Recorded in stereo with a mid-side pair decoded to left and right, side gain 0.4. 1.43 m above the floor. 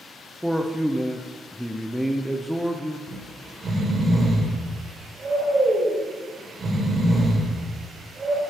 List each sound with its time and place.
0.4 s a man speaking: straight ahead, 0.7 m
3.1 s snoring: 45° right, 2 m